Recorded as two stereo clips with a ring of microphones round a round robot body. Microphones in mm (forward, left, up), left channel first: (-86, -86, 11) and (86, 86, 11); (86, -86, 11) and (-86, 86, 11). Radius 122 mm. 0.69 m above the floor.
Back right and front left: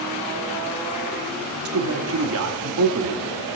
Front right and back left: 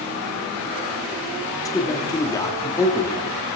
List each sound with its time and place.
1.6 s a man speaking: 30° left, 1.1 m